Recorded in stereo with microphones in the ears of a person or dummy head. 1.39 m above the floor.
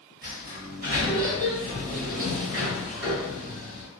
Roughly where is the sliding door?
Right.